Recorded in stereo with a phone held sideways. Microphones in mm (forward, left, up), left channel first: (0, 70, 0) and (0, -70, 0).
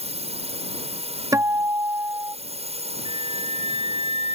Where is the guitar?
25° right (ahead or behind).